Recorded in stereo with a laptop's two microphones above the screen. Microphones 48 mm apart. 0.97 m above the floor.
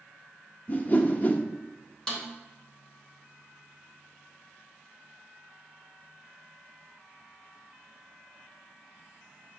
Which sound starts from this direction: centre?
A snare drum, at 2.1 s.